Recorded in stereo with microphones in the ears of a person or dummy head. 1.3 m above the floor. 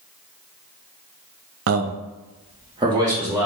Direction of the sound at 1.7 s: 55° right (ahead or behind).